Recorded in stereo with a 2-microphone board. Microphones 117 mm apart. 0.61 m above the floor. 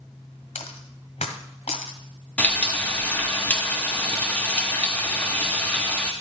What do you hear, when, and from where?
0.6 s a dropped coin: 75° left (ahead or behind), 1.3 m
2.4 s frying: 15° left (ahead or behind), 1.1 m